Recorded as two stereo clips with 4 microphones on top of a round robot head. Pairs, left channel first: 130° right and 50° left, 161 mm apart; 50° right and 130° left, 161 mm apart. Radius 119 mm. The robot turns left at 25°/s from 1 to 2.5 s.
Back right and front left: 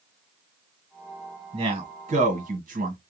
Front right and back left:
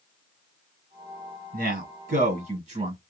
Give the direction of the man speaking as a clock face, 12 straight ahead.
8 o'clock.